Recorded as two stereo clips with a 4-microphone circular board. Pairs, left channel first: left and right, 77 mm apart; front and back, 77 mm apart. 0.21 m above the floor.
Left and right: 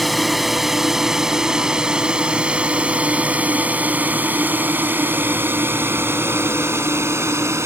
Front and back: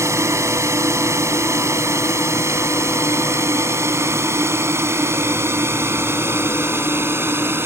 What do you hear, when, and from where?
0.0 s a drone: straight behind; by 7.7 s 130° right